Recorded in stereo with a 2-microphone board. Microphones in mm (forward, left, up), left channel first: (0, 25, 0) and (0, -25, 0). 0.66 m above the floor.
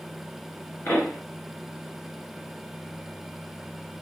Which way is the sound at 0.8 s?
60° left (ahead or behind).